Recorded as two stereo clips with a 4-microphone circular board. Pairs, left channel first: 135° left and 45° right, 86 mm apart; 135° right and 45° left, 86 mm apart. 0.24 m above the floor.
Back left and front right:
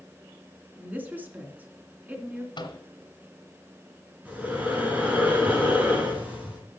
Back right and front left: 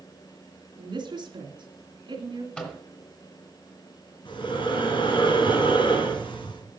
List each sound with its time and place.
0.8 s a woman speaking: 25° left, 2.5 m
2.6 s a microwave: 150° left, 2.5 m
4.2 s breathing: 120° right, 3.5 m